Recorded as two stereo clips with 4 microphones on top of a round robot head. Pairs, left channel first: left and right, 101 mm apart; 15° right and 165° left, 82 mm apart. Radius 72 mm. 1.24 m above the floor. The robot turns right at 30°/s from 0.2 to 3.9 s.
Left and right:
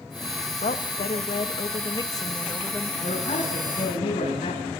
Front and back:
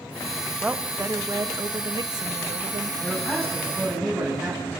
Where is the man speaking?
50° left, 8 m; by 4.7 s 75° left, 8 m.